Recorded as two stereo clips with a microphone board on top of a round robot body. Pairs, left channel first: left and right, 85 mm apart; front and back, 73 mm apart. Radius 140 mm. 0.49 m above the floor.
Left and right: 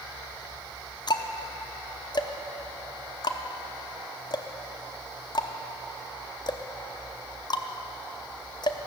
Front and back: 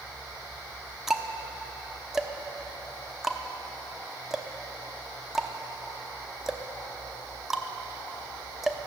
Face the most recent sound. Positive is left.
turn(degrees=95)